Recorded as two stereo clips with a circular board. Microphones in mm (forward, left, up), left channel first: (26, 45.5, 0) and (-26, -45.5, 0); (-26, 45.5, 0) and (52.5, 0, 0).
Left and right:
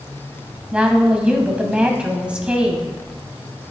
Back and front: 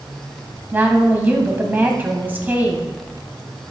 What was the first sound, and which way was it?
A woman speaking, 55° right.